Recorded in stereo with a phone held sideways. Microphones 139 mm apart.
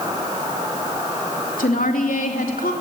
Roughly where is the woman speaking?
Left.